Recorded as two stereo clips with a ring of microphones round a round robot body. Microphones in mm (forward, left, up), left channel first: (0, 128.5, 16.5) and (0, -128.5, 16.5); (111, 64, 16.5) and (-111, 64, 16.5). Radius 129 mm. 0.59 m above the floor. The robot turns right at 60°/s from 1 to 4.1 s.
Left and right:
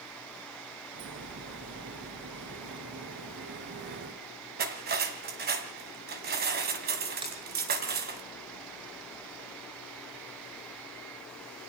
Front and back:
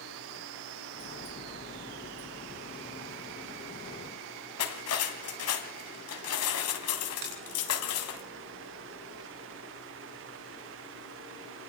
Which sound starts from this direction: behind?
A finger snap, at 7.2 s.